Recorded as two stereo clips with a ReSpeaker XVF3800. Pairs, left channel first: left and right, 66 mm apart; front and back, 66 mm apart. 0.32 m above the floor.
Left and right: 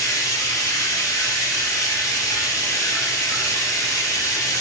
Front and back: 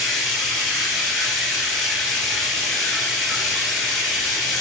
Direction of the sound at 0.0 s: 90° left.